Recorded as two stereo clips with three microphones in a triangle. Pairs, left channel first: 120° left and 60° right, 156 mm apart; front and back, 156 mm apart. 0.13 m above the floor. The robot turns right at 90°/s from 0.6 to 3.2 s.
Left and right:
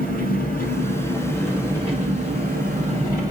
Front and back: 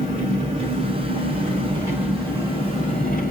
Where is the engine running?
130° left, 1.9 m; by 3.3 s 5° left, 1.9 m.